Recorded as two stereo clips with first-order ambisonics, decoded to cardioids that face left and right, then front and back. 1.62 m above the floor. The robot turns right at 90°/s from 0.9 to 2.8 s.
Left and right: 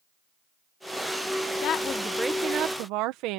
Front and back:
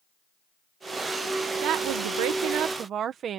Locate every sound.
1.6 s a woman speaking: 130° left; by 3.4 s 120° right